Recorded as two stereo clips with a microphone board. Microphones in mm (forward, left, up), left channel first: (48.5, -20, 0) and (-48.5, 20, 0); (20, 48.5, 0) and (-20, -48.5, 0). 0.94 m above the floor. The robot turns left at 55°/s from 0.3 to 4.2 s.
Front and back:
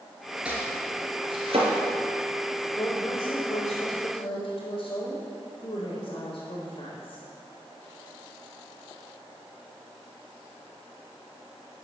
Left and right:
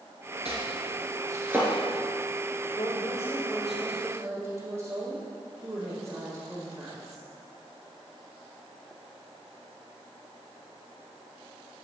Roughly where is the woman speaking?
Ahead left.